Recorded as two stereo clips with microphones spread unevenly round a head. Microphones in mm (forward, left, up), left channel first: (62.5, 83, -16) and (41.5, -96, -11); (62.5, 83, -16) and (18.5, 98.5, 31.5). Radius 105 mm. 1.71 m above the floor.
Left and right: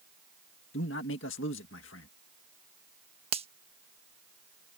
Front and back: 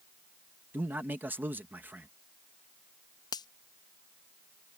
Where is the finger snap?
45° right.